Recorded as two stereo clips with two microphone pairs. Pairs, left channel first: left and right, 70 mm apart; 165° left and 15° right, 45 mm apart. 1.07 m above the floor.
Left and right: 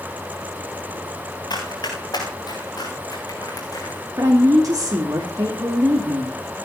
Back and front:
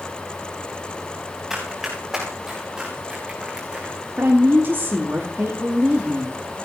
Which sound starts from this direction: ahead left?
Running footsteps, at 1.5 s.